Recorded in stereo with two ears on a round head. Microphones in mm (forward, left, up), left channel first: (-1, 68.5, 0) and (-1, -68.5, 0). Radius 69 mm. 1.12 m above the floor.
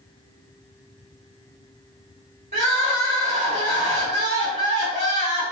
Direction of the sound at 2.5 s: 40° right (ahead or behind).